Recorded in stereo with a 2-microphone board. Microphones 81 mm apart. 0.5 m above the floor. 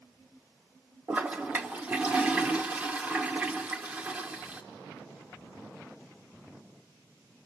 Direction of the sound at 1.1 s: 20° right (ahead or behind).